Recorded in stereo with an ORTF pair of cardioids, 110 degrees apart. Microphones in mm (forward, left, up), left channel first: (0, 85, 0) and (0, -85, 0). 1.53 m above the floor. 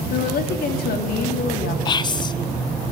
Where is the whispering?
25° left, 1.0 m.